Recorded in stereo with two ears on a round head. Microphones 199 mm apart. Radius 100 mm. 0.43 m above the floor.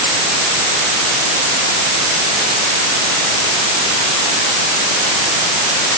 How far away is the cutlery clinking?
No cutlery clinking in this recording.